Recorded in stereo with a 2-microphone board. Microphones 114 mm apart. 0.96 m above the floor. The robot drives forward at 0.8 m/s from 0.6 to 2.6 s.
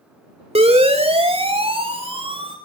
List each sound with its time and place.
0.6 s a siren: 75° right (ahead or behind), 4 m; by 2.5 s 55° right (ahead or behind), 5.5 m